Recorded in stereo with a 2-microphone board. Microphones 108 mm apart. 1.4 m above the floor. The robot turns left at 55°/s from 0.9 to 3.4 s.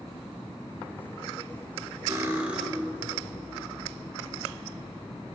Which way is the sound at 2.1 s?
145° right.